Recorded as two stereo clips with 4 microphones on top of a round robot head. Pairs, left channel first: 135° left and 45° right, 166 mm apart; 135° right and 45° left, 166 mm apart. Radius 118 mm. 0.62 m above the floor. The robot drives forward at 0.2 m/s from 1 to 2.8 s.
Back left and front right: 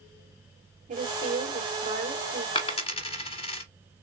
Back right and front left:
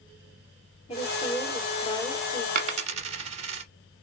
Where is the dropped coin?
80° left, 0.5 m; by 3.6 s 90° left, 0.5 m.